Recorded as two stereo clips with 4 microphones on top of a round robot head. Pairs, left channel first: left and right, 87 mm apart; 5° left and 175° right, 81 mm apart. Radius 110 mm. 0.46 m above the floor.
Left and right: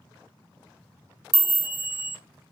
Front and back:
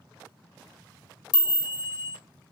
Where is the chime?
30° right, 0.9 m.